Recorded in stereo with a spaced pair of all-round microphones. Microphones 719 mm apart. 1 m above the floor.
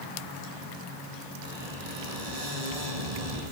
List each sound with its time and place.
1.4 s a squeak: 60° right (ahead or behind), 8 m